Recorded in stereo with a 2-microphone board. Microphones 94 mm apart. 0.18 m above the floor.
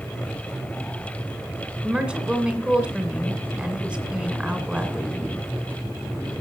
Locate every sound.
1.8 s a woman speaking: 10° right (ahead or behind), 2.0 m